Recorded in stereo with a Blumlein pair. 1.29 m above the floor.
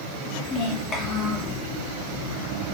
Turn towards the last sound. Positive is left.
turn(degrees=30)